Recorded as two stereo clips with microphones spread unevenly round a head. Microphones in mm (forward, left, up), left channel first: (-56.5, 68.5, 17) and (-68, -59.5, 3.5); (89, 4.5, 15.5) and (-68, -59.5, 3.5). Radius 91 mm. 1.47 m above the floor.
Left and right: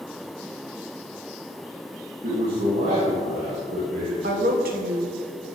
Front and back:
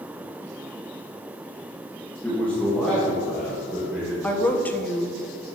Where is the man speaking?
60° right, 2 m; by 4.1 s 70° right, 5 m.